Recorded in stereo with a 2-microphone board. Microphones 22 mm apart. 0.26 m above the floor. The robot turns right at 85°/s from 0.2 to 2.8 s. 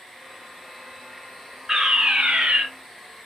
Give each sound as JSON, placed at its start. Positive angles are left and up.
{"t": 1.7, "sound": "a fire alarm", "azimuth_deg": -150, "distance_m": 4.5}